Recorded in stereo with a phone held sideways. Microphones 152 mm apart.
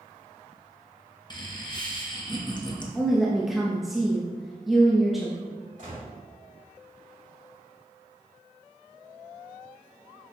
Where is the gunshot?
60° right (ahead or behind), 2.5 m.